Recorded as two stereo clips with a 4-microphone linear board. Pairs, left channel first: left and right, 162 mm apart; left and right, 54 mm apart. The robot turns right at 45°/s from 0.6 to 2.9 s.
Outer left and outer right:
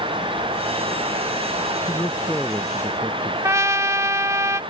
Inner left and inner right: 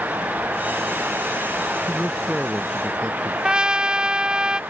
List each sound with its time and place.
1.9 s a man speaking: 155° left; by 3.3 s 160° right
3.4 s a trumpet: 20° right (ahead or behind)